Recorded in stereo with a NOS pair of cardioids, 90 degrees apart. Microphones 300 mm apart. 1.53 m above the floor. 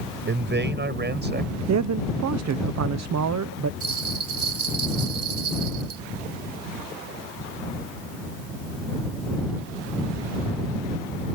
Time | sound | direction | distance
0.3 | a man speaking | 35° right | ?
1.7 | a man speaking | 65° right | ?
3.8 | a bell | 50° right | ?